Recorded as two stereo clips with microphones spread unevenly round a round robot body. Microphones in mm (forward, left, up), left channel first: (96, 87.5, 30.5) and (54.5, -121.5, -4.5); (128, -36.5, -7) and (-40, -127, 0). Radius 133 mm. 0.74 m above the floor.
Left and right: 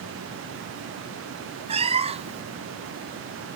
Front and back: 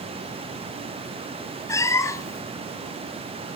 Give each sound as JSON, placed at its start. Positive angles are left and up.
{"t": 1.7, "sound": "a cat meowing", "azimuth_deg": -40, "distance_m": 0.8}